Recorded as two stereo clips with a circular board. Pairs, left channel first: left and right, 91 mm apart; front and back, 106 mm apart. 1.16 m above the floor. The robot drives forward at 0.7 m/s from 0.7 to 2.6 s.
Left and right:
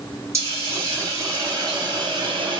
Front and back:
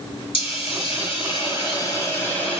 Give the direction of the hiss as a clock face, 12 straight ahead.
1 o'clock.